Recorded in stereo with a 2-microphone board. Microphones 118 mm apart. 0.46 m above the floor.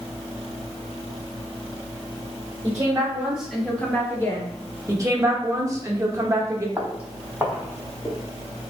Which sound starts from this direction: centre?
Footsteps, at 6.8 s.